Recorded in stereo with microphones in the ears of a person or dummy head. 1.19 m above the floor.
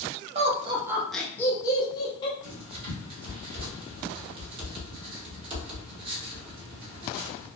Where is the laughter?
35° right (ahead or behind), 0.5 m; by 2.3 s 25° left (ahead or behind), 1.1 m.